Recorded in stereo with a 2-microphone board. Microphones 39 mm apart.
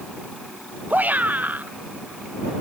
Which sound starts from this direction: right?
A shout, at 0.9 s.